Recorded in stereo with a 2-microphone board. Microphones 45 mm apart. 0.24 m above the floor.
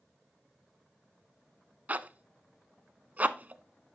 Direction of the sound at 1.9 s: 40° right (ahead or behind).